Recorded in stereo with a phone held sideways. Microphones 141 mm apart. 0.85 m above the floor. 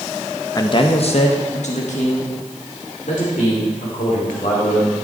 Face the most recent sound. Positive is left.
turn(degrees=75)  # may be behind; listen again after turning